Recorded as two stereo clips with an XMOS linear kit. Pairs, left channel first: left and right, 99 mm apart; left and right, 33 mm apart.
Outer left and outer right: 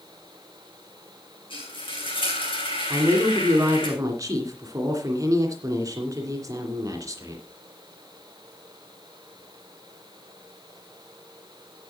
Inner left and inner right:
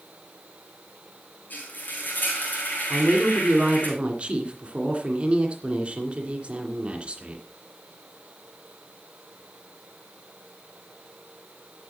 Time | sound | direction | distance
1.5 | frying | 60° left (ahead or behind) | 4 m
2.9 | a woman speaking | 35° right (ahead or behind) | 2.5 m